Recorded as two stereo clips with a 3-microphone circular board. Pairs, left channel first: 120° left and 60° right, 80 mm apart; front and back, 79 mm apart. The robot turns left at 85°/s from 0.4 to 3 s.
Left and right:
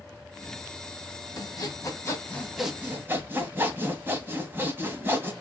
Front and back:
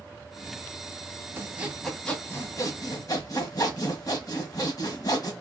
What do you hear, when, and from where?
1.4 s sawing: 135° left, 1.1 m; by 5.3 s 5° right, 1.1 m